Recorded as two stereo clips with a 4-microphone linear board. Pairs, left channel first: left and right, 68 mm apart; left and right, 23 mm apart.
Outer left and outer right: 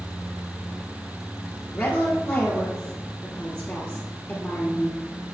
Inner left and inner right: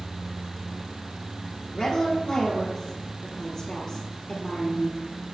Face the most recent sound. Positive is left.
turn(degrees=25)  # may be behind; listen again after turning